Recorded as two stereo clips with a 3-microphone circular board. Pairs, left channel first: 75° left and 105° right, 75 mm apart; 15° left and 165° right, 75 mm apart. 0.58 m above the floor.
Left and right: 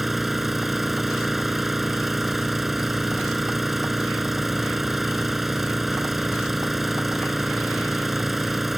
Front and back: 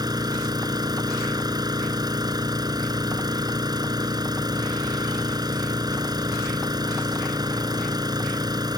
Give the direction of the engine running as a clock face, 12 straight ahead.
6 o'clock.